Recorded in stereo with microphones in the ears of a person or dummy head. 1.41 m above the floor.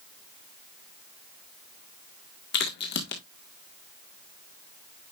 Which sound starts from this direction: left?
A crack, at 2.5 s.